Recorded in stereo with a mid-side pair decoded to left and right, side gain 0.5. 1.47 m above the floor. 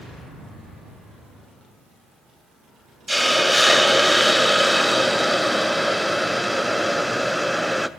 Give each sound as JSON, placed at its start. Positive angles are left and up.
{"t": 3.1, "sound": "a hiss", "azimuth_deg": 5, "distance_m": 0.8}